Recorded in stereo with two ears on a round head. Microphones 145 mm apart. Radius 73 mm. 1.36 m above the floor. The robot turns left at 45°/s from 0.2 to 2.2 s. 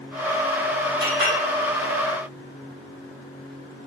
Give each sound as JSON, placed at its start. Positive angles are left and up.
{"t": 1.0, "sound": "a clink", "side_deg": -75, "distance_m": 4.5}